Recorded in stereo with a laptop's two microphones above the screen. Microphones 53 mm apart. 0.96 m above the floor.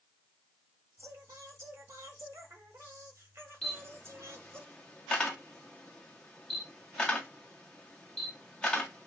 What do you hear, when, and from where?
1.0 s singing: 55° right (ahead or behind), 1.4 m
3.6 s a camera shutter: 15° left (ahead or behind), 0.9 m